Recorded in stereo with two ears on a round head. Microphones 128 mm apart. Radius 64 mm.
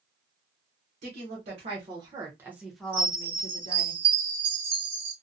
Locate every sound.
1.0 s a woman speaking: 55° right (ahead or behind), 1.2 m; by 3.9 s 45° left (ahead or behind), 0.9 m
2.9 s a chime: 35° right (ahead or behind), 1.1 m